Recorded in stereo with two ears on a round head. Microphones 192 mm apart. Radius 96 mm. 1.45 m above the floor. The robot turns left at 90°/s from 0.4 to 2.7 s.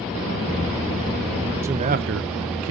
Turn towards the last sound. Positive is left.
turn(degrees=-110)